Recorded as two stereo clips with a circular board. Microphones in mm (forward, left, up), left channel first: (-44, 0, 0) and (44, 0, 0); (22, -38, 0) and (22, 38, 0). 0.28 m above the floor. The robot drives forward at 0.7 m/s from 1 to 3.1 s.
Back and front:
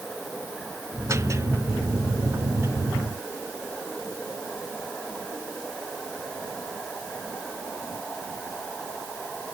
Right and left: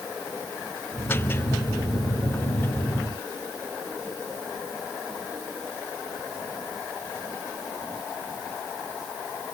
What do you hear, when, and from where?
Only background noise.